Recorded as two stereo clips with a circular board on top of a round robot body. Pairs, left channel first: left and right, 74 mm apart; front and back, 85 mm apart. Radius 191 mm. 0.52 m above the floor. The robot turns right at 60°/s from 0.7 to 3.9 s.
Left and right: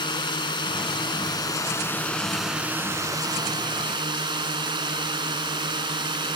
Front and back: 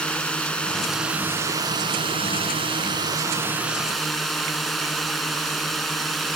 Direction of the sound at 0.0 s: 80° left.